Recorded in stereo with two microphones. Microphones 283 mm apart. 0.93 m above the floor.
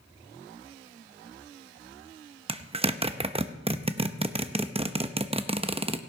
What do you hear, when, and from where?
2.5 s a zipper: 20° right (ahead or behind), 0.7 m